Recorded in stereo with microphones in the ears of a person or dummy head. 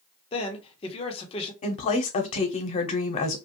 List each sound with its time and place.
0.3 s a man speaking: 25° left (ahead or behind), 1.1 m
1.6 s a woman speaking: 35° left (ahead or behind), 0.9 m